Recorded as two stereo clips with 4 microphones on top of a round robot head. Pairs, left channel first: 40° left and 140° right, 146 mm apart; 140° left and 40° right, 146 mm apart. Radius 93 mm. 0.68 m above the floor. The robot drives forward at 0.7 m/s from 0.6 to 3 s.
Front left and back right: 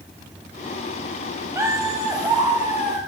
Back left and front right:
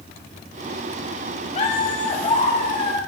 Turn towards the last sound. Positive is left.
turn(degrees=165)